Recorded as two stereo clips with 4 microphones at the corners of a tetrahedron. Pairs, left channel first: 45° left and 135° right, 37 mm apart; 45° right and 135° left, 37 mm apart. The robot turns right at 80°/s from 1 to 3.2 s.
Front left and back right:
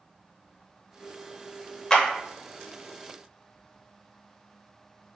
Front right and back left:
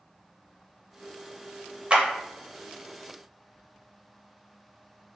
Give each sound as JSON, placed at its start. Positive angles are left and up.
{"t": 1.9, "sound": "a clap", "azimuth_deg": 105, "distance_m": 0.7}